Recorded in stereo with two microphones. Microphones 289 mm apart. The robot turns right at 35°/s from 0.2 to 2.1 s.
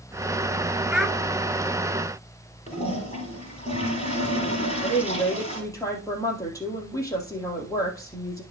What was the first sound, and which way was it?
A child speaking, 5° right (ahead or behind).